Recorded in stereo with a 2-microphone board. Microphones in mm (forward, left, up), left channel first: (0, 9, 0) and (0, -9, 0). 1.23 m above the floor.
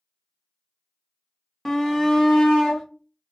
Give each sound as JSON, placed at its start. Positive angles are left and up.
{"t": 1.6, "sound": "a shout", "side_deg": 15, "distance_m": 0.6}